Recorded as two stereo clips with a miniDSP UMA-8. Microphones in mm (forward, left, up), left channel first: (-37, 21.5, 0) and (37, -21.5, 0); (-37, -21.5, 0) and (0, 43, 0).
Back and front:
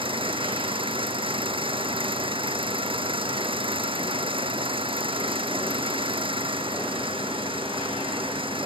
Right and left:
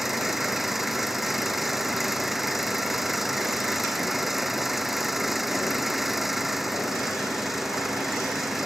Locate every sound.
0.0 s an engine running: 25° right